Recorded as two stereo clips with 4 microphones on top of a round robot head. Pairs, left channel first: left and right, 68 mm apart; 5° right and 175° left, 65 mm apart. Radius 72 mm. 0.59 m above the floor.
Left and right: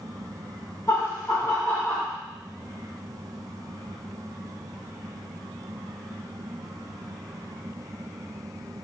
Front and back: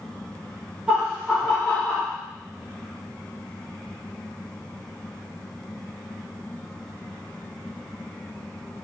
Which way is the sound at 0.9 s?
100° left.